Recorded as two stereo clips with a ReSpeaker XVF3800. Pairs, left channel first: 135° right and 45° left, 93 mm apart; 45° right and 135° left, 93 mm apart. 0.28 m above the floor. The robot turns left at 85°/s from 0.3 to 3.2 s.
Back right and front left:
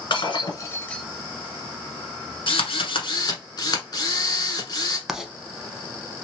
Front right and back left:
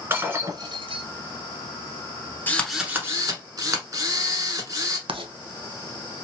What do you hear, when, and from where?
0.1 s breaking glass: 165° right, 1.1 m; by 1.1 s 130° left, 1.1 m
2.5 s a drill: 110° right, 1.2 m; by 5.0 s 175° right, 1.2 m
5.1 s writing: 130° left, 0.6 m